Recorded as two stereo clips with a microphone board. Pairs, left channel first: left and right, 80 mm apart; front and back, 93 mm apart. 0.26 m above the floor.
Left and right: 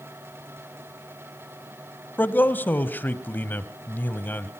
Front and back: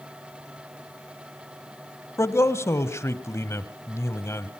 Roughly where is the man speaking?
Ahead left.